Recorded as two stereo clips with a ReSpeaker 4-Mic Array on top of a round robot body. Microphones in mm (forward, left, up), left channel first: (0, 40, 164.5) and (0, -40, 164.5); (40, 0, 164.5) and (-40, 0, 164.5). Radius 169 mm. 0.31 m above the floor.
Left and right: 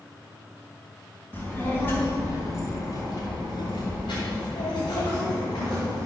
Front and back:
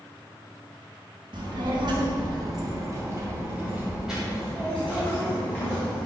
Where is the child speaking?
160° left, 3 m; by 6.0 s 55° left, 3 m.